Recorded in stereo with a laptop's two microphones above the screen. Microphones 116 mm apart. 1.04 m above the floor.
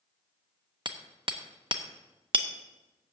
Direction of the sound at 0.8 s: 45° right (ahead or behind).